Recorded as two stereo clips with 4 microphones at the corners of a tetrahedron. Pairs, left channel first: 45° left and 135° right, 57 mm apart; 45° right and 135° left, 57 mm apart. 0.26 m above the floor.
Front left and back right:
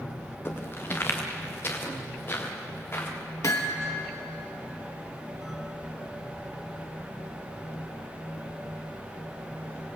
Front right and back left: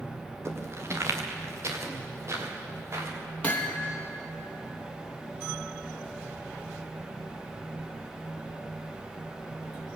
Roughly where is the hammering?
Ahead.